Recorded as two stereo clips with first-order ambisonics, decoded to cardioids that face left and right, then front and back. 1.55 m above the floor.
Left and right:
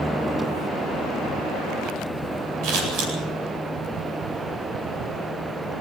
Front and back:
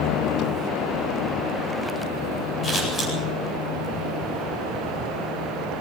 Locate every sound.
2.6 s scissors: 65° right, 9 m